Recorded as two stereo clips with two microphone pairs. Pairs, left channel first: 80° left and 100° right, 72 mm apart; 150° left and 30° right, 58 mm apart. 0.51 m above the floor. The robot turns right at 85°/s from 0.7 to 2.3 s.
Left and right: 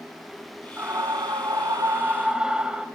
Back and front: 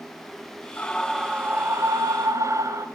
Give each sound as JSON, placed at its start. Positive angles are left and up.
{"t": 0.8, "sound": "a scream", "azimuth_deg": -155, "distance_m": 3.5}